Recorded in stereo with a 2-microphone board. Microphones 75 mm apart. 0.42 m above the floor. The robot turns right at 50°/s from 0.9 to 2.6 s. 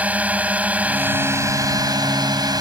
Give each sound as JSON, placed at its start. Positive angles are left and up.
{"t": 0.0, "sound": "a drone", "azimuth_deg": -160}